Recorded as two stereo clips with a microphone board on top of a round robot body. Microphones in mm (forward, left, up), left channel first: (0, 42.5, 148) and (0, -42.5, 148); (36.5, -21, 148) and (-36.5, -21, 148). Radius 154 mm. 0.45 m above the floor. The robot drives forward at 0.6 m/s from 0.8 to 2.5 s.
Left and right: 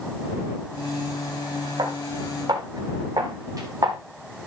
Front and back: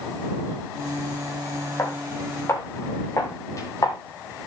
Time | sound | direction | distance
1.8 | footsteps | 50° right | 6 m